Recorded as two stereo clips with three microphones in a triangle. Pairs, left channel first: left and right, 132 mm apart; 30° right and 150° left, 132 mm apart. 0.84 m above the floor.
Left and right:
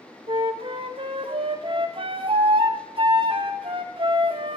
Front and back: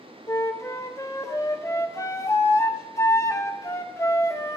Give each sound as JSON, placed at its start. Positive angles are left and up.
{"t": 0.3, "sound": "a flute", "azimuth_deg": -85, "distance_m": 1.0}